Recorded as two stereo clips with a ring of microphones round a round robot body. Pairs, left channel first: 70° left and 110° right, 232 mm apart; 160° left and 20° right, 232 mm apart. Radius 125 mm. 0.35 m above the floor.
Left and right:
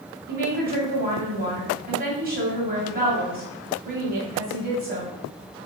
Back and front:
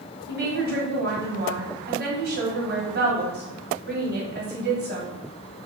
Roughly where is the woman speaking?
Ahead right.